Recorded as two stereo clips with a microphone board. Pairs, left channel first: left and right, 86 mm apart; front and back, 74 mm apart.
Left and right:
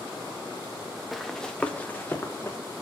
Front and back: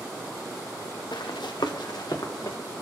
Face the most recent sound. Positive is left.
turn(degrees=30)